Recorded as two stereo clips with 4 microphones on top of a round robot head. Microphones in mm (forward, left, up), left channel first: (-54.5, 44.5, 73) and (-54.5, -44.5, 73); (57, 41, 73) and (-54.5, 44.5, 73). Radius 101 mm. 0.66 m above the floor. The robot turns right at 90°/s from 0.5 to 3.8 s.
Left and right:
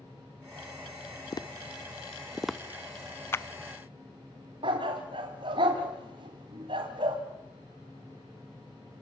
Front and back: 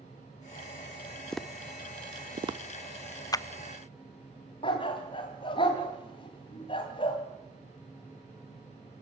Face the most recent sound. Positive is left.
turn(degrees=-50)